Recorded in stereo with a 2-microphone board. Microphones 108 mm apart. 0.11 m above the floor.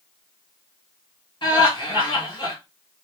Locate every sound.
1.4 s laughter: 40° left (ahead or behind), 2 m